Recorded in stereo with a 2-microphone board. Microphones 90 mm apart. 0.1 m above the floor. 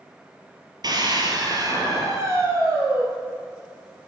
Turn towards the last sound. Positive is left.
turn(degrees=-20)  # may be behind; listen again after turning